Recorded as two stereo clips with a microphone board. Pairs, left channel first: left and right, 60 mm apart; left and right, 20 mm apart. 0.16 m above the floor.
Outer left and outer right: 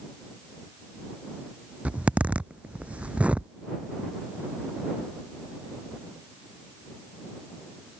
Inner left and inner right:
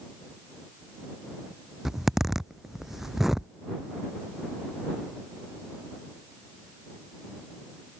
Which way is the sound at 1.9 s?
20° right (ahead or behind).